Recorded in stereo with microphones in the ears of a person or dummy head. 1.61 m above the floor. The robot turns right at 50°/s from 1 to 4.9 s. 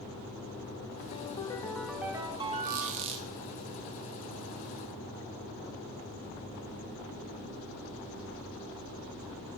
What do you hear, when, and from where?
1.1 s a ringtone: 135° left, 1.0 m; by 3.1 s 125° right, 1.0 m
2.6 s a squeak: 70° right, 1.3 m; by 3.3 s 40° right, 1.3 m